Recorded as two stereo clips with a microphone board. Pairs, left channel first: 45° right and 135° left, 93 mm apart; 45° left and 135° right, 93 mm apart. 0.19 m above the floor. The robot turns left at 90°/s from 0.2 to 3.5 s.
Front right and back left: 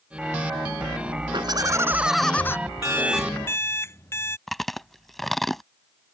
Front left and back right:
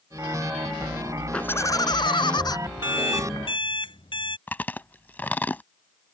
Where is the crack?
I don't hear a crack.